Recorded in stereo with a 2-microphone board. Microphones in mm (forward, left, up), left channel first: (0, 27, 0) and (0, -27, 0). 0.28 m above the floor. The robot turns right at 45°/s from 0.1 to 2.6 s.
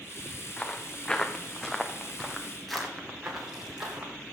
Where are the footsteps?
15° left (ahead or behind), 2.0 m; by 4.1 s 15° right (ahead or behind), 4 m.